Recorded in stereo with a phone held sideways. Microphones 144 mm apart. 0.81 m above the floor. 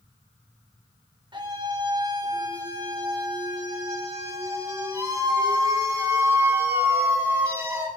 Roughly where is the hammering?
No hammering in this recording.